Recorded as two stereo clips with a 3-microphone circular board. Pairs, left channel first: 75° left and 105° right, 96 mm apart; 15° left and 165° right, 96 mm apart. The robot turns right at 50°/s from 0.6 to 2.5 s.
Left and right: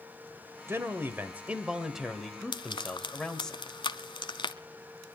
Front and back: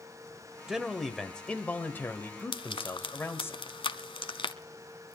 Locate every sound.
0.7 s a man speaking: 90° right, 1.6 m; by 3.5 s straight ahead, 1.6 m
2.5 s frying: 45° left, 0.8 m